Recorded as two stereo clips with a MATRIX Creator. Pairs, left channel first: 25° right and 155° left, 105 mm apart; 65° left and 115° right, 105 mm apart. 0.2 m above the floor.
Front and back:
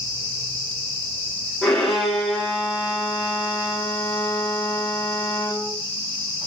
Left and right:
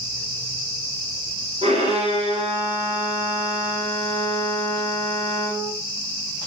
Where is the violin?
110° right, 10 m.